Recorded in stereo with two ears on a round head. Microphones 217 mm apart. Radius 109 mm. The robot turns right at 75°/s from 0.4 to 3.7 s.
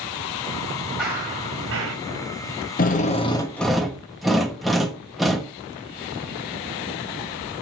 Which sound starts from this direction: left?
A drill, at 2.8 s.